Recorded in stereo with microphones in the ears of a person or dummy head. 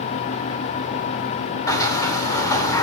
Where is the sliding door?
20° left (ahead or behind), 3 m.